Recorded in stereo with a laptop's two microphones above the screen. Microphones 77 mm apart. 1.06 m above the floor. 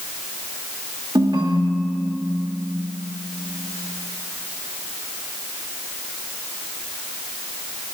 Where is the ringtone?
70° right (ahead or behind), 1.2 m.